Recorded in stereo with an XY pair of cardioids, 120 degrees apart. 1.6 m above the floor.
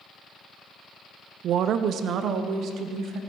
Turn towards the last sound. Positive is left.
turn(degrees=-65)